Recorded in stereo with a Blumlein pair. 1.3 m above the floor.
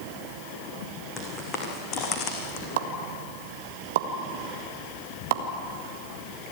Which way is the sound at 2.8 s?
55° right.